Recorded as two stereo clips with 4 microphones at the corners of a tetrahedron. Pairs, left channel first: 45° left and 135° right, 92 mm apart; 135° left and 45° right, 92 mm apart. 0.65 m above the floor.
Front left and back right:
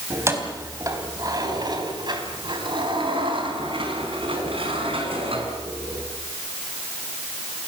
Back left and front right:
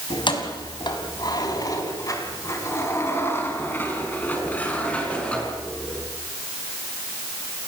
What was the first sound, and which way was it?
Keys jangling, 165° left.